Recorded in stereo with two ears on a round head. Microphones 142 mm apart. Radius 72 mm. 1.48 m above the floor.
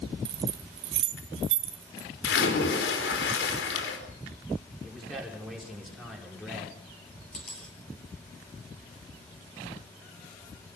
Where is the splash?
65° left (ahead or behind), 4.5 m.